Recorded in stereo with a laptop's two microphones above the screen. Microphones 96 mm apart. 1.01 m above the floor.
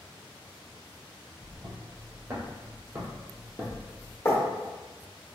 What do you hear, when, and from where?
1.4 s footsteps: 50° right (ahead or behind), 1.8 m; by 4.2 s 10° right (ahead or behind), 1.0 m
4.2 s writing: 30° left (ahead or behind), 1.2 m